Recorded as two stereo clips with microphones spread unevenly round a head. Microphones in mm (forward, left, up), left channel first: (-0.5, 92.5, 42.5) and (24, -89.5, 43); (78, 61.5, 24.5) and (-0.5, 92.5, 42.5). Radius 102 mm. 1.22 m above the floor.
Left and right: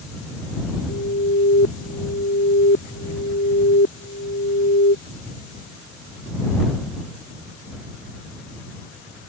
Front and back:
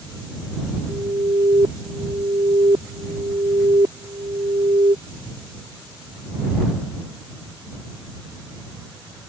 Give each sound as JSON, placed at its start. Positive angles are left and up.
{"t": 0.9, "sound": "an alarm", "azimuth_deg": 130}